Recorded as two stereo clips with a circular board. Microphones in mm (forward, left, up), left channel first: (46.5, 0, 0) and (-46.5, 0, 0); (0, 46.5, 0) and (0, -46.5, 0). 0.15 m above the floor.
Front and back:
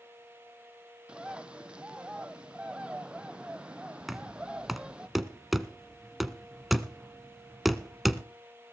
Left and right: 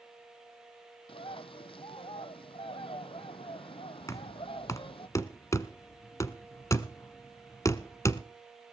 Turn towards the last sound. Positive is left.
turn(degrees=90)